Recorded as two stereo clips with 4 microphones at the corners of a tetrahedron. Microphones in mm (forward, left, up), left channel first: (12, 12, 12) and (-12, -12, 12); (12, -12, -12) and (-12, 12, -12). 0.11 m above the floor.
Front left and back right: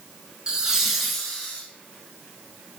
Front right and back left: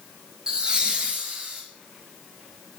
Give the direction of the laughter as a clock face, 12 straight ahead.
6 o'clock.